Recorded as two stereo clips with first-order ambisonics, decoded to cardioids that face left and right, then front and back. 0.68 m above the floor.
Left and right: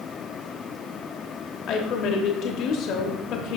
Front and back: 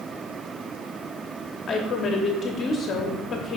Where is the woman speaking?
60° left, 0.9 m.